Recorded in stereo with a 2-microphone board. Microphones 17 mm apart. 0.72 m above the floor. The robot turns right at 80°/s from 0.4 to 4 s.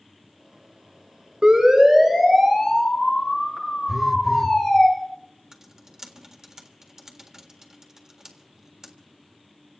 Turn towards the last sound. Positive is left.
turn(degrees=-35)  # may be behind; listen again after turning